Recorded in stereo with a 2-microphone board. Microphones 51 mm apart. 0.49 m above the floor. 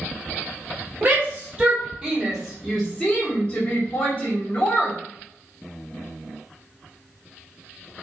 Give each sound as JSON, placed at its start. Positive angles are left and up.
{"t": 1.0, "sound": "a shout", "side_deg": -35, "distance_m": 1.7}